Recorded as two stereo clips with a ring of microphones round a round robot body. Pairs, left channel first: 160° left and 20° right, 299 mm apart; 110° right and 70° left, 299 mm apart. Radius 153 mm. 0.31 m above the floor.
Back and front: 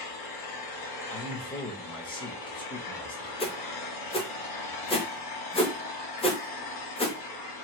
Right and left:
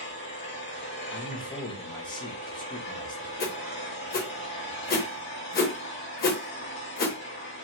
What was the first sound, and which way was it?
An engine running, straight behind.